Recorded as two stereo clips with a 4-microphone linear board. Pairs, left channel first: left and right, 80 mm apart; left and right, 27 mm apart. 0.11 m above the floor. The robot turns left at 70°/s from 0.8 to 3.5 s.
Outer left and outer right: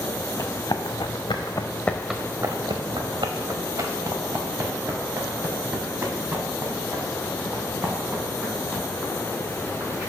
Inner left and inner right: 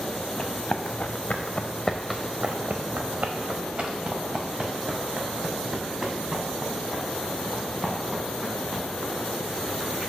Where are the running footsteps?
40° left (ahead or behind), 1.0 m; by 10.1 s 10° right (ahead or behind), 4.5 m.